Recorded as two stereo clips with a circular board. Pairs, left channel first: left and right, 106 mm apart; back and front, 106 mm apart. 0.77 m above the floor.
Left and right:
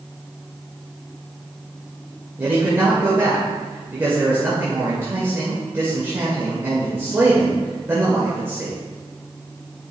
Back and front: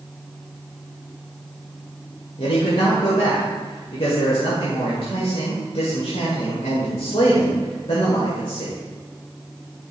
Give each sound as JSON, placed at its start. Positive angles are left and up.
{"t": 2.4, "sound": "a man speaking", "azimuth_deg": -155, "distance_m": 2.0}